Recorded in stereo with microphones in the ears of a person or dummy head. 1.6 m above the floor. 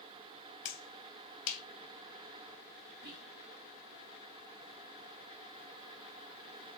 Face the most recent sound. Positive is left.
turn(degrees=-50)  # may be behind; listen again after turning